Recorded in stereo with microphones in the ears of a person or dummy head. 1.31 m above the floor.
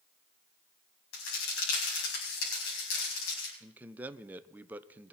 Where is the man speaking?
10° right (ahead or behind), 0.8 m.